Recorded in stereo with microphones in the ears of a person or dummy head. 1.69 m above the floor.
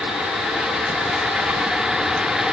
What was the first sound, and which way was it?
Only background noise.